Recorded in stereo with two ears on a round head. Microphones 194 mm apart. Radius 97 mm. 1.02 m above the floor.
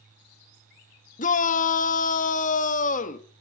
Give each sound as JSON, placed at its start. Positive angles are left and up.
{"t": 1.2, "sound": "a shout", "side_deg": 35, "distance_m": 1.2}